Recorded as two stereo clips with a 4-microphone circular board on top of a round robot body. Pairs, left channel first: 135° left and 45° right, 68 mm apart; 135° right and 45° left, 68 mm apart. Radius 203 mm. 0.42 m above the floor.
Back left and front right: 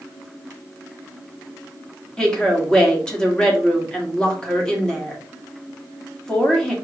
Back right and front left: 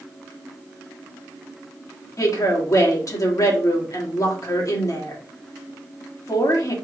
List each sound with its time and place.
2.2 s a woman speaking: 150° right, 2 m